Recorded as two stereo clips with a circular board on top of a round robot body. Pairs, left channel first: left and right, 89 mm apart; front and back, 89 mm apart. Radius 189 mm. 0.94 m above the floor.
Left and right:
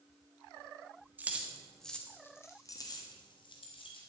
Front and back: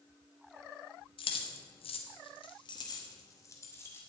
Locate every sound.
1.2 s keys jangling: 20° right, 1.4 m; by 4.0 s 65° left, 2 m